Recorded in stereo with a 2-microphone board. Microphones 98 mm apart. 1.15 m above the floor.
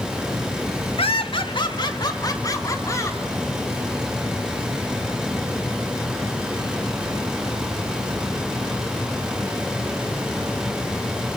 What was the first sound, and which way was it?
Laughter, 70° left (ahead or behind).